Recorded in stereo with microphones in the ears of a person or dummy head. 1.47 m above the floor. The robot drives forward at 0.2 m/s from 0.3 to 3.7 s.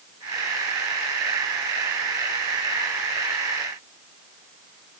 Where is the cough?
I don't hear a cough.